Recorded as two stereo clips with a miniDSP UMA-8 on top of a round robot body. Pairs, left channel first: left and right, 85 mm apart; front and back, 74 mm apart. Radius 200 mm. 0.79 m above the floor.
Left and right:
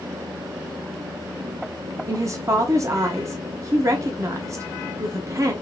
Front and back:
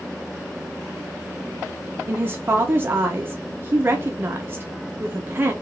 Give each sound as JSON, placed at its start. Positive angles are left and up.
{"t": 2.1, "sound": "a woman speaking", "azimuth_deg": -130, "distance_m": 0.8}